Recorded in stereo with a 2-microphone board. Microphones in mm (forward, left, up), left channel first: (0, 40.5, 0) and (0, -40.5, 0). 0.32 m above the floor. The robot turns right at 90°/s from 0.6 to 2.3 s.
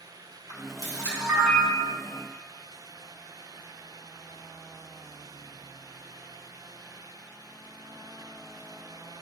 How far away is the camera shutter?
About 2.5 m.